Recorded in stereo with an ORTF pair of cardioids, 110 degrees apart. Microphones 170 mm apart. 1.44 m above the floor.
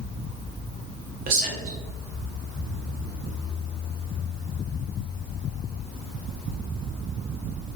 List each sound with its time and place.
1.3 s a man speaking: 60° right, 1.0 m